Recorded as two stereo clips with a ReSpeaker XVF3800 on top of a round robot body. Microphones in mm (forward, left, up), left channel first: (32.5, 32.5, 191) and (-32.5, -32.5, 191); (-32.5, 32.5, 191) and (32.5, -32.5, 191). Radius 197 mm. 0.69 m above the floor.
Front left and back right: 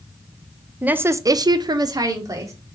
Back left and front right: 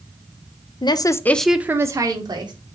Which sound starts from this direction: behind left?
A woman speaking, at 0.8 s.